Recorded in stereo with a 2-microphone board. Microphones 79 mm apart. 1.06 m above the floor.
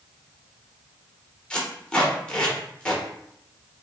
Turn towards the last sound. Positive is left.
turn(degrees=10)  # may be behind; listen again after turning